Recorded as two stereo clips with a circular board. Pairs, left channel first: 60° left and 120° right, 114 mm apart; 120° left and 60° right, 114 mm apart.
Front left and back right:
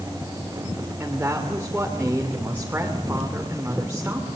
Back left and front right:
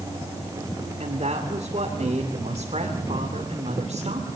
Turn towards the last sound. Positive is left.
turn(degrees=-45)